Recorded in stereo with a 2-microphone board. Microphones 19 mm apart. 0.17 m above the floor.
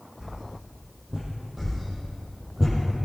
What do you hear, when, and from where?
0.2 s a whoosh: 50° right (ahead or behind), 5 m
1.6 s a whoosh: 15° right (ahead or behind), 5.5 m